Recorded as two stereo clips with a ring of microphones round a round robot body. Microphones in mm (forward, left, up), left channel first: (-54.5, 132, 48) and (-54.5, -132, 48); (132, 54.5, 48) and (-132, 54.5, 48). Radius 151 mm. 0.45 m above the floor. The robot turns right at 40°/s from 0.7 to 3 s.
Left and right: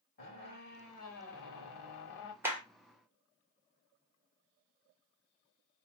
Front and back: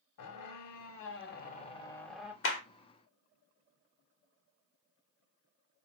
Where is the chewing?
I don't hear chewing.